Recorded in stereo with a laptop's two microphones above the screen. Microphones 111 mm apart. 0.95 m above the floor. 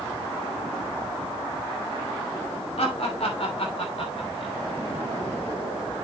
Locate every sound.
2.8 s laughter: 70° left (ahead or behind), 2 m; by 4.5 s 55° left (ahead or behind), 3 m